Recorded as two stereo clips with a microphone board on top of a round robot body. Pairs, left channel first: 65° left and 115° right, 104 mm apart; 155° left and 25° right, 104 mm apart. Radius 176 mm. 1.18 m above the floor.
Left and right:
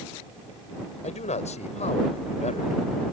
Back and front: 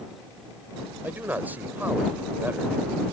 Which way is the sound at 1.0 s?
55° left.